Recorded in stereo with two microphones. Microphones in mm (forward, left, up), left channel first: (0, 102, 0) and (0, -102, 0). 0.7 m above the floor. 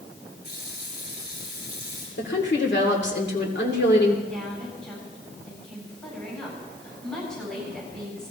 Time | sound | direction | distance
0.4 | a running tap | 55° left (ahead or behind) | 7 m
2.2 | a woman speaking | 60° left (ahead or behind) | 2.5 m
4.3 | a woman speaking | 5° left (ahead or behind) | 8 m